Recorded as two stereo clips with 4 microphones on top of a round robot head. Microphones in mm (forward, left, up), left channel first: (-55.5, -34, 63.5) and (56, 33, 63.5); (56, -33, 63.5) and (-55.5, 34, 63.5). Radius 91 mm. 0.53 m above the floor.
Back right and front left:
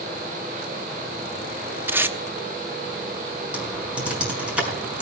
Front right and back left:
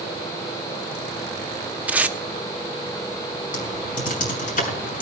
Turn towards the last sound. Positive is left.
turn(degrees=-50)